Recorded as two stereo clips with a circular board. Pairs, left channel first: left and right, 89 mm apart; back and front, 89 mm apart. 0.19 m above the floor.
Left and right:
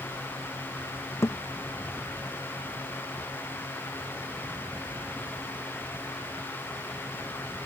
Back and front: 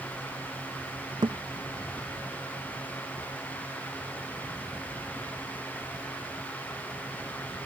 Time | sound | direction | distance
1.2 | a thud | 35° left | ?